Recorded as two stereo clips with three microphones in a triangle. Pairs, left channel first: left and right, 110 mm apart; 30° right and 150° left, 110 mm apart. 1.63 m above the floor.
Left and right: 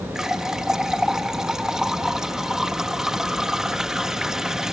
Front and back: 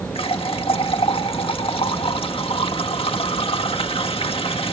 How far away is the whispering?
I don't hear whispering.